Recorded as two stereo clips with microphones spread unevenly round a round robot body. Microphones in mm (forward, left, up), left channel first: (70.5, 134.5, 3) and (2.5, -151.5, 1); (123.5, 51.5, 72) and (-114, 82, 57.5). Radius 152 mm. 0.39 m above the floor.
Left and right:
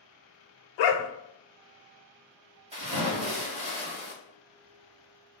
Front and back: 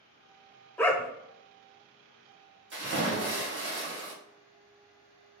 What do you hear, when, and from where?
0.8 s a dog barking: 75° left, 0.6 m
2.7 s a splash: 170° right, 1.7 m